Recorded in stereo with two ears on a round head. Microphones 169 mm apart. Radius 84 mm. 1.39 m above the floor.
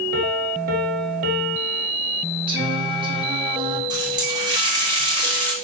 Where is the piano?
50° right (ahead or behind), 1.7 m.